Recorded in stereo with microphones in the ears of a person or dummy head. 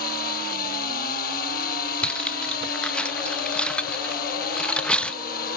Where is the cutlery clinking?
15° left (ahead or behind).